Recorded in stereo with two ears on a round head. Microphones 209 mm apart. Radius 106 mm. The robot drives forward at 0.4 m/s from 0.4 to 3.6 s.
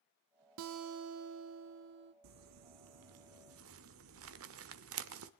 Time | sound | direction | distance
0.6 | a guitar | 55° right (ahead or behind) | 0.7 m
2.2 | crumpling | 80° right | 1.0 m